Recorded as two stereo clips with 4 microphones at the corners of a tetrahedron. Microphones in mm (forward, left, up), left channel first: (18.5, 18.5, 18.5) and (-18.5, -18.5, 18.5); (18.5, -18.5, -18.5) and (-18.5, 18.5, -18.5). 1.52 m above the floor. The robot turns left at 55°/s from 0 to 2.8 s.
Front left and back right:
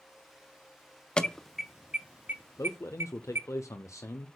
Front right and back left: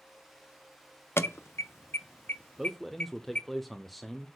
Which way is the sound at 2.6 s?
55° left.